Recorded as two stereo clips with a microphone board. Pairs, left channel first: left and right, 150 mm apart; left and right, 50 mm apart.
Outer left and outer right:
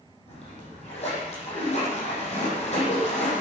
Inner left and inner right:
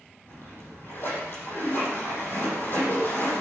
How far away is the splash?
About 9 m.